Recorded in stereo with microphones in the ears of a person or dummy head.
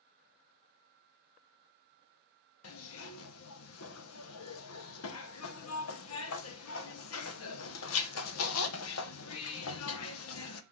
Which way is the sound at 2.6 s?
85° left.